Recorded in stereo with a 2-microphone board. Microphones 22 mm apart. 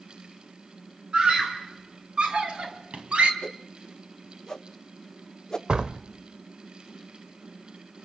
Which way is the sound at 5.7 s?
50° right (ahead or behind).